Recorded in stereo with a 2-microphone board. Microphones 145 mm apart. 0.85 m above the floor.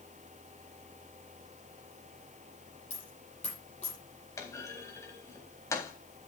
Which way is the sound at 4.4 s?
20° left (ahead or behind).